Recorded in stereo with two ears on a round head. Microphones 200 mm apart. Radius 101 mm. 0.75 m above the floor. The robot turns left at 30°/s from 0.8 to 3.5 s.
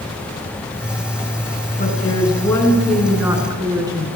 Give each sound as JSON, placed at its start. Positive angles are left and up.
{"t": 1.8, "sound": "a woman speaking", "azimuth_deg": 35, "distance_m": 8.0}